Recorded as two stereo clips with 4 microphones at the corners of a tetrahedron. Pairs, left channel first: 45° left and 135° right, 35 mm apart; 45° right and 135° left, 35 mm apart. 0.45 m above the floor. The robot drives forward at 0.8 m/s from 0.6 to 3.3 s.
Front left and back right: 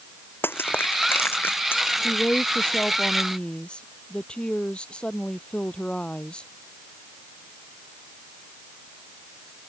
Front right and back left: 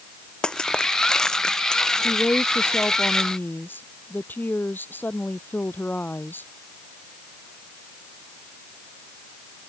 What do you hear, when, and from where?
0.4 s crushing: 20° left; by 1.8 s 25° left
2.0 s a woman speaking: 20° right